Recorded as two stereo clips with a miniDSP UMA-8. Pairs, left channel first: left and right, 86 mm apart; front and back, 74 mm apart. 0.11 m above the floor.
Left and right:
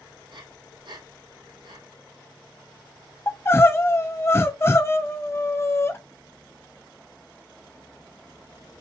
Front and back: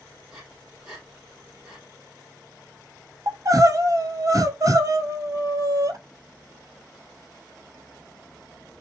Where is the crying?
150° left, 0.5 m.